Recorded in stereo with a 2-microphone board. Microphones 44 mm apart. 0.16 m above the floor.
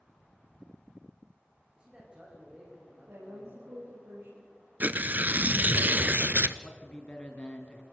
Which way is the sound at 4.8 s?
40° right (ahead or behind).